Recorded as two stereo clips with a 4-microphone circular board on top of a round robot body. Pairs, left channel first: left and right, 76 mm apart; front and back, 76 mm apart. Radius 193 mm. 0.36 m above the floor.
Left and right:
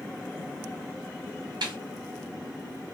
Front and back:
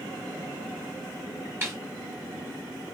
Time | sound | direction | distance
1.6 | a snare drum | 120° right | 1.1 m